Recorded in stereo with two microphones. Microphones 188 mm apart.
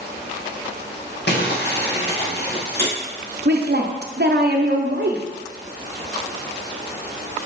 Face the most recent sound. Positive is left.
turn(degrees=-60)  # may be behind; listen again after turning